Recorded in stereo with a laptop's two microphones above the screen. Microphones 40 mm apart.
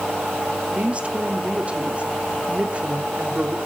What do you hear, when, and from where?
0.7 s a woman speaking: 35° right (ahead or behind), 3 m